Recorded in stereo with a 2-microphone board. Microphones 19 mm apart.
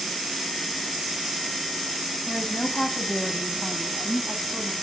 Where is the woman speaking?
40° left (ahead or behind), 3 m; by 4.7 s 10° left (ahead or behind), 3.5 m.